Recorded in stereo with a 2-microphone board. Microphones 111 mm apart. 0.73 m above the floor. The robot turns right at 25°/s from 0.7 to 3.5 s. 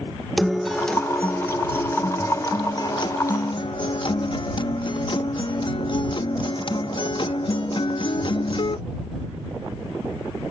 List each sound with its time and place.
0.4 s a guitar: straight ahead; by 8.8 s 70° left